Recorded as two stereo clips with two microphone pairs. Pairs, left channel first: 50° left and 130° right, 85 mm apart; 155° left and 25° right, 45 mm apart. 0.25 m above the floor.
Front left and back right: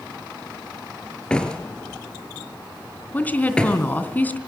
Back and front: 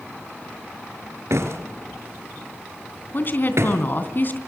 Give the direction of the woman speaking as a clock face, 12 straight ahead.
8 o'clock.